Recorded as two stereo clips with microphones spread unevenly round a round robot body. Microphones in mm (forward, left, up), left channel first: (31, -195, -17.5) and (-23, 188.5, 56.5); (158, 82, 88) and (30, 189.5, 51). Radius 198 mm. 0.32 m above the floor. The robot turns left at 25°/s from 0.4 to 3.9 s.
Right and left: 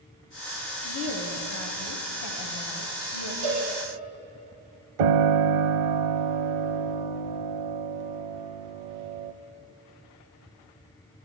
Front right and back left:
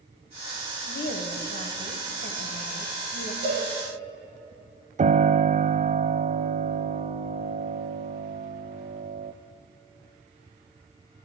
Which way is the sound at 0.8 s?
20° right.